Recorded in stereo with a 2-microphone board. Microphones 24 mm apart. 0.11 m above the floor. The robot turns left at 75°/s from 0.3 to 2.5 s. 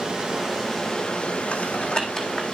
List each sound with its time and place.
0.0 s running water: 155° right, 3 m; by 2.5 s 40° left, 3 m
1.5 s typing on a keyboard: 75° left (ahead or behind), 1.7 m; by 2.4 s 10° left (ahead or behind), 1.7 m